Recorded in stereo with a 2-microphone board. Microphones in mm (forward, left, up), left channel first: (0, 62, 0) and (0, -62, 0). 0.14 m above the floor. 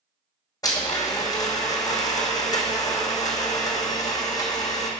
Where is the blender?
30° left (ahead or behind), 1.2 m.